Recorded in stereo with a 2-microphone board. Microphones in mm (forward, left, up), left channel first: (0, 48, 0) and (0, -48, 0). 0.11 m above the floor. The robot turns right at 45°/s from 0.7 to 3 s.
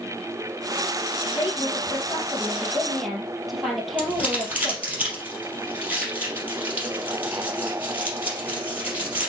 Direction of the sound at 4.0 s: 15° right (ahead or behind).